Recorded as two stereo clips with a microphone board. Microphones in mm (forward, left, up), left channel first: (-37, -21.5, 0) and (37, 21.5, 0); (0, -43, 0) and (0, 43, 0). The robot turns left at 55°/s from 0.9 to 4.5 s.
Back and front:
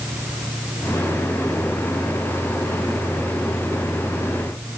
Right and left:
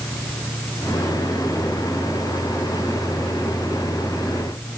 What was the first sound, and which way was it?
Only background noise.